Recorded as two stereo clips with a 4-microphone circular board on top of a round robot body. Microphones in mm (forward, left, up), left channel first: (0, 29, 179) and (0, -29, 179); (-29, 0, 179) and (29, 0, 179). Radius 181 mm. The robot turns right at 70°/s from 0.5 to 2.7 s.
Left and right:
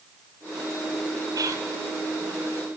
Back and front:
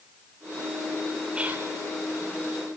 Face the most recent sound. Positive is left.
turn(degrees=20)